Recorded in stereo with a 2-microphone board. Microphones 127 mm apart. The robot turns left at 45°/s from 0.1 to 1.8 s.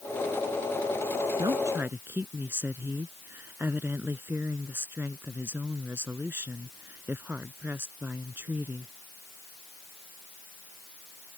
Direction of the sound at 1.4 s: 35° right (ahead or behind).